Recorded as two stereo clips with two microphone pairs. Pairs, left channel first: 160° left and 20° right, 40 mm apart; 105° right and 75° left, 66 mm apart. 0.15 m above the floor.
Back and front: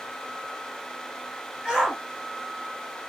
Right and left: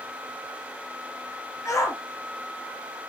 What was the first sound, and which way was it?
A shout, 100° right.